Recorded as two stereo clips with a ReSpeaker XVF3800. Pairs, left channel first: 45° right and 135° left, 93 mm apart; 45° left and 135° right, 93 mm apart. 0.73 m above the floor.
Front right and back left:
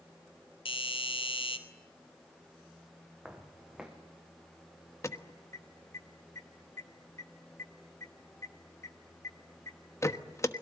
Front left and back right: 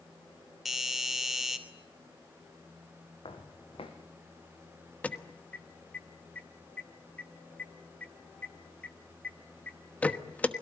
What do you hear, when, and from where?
0.7 s a doorbell: 45° right, 3 m
3.2 s footsteps: 55° left, 3 m
5.0 s an alarm: 20° right, 1.2 m